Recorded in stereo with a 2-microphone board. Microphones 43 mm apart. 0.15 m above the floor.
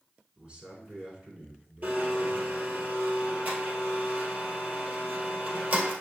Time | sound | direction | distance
0.4 | a man speaking | 30° right (ahead or behind) | 1.5 m
1.8 | a blender | 45° right (ahead or behind) | 1.5 m